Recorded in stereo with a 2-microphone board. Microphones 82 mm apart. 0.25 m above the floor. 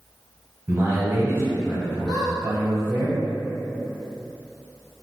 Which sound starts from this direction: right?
A man speaking, at 0.7 s.